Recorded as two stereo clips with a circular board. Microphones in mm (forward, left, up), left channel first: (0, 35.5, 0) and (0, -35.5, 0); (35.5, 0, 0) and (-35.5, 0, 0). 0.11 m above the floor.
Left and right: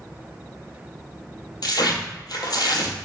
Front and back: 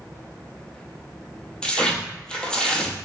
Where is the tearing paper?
75° left, 0.7 m.